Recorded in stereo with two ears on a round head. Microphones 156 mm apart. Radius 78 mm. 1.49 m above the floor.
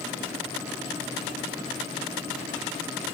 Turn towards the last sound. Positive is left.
No sound to turn to.